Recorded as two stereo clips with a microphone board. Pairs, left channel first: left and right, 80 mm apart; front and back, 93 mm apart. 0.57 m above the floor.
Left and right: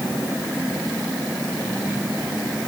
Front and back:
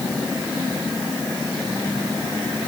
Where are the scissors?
No scissors in this recording.